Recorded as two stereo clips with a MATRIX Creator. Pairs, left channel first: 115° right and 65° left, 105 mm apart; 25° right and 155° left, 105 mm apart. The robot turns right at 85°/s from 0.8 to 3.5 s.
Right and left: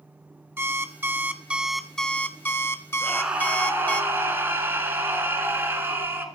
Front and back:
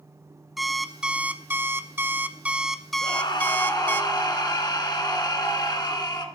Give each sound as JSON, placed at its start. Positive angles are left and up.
{"t": 0.6, "sound": "an alarm clock", "azimuth_deg": 70, "distance_m": 0.6}
{"t": 3.0, "sound": "a scream", "azimuth_deg": -35, "distance_m": 2.0}